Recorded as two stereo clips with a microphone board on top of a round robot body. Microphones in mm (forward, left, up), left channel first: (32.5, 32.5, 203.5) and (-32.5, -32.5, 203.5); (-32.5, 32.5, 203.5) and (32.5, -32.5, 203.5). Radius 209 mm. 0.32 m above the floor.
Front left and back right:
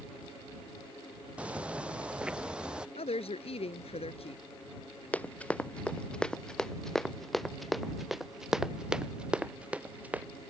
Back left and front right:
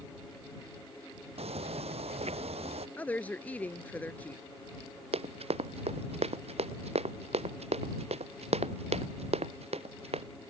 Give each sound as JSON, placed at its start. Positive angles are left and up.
{"t": 1.4, "sound": "footsteps", "azimuth_deg": -55}
{"t": 3.0, "sound": "a woman speaking", "azimuth_deg": 60}
{"t": 5.1, "sound": "running footsteps", "azimuth_deg": -30}